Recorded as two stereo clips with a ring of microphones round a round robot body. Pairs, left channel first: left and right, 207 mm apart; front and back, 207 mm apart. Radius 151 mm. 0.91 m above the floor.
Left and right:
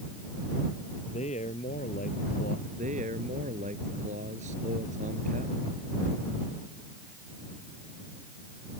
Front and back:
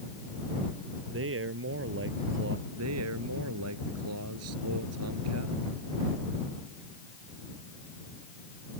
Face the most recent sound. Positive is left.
turn(degrees=-160)